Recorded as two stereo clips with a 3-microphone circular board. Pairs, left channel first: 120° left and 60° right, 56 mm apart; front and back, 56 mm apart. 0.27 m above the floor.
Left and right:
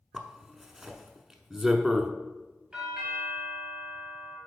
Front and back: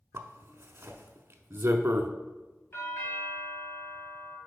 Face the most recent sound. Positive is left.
turn(degrees=5)